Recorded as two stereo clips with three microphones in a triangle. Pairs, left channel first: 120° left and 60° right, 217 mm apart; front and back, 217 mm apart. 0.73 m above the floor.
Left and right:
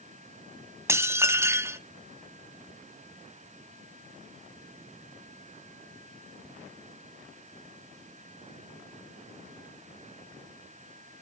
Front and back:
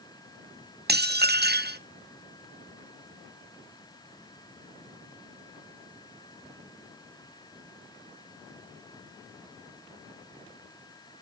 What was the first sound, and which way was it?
Dishes clattering, 135° right.